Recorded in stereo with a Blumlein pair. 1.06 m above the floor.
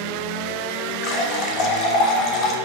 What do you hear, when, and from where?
1.0 s a running tap: 35° left, 0.5 m